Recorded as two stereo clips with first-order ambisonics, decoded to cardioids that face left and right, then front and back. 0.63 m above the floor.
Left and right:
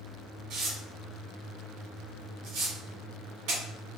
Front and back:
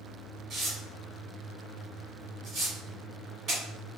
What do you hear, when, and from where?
0.5 s tearing paper: 120° right, 1.2 m